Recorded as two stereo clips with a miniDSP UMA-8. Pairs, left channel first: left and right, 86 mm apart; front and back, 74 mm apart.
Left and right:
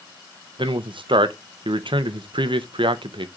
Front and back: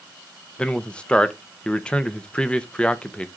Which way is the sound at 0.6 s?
75° right.